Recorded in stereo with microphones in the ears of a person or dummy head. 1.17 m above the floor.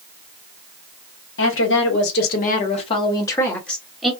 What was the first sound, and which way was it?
A woman speaking, 60° left (ahead or behind).